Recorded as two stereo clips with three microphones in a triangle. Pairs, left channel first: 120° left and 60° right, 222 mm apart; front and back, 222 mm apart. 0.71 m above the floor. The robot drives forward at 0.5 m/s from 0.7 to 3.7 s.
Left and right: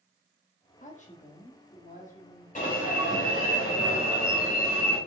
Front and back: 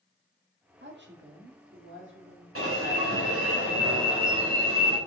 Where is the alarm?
175° left, 3 m.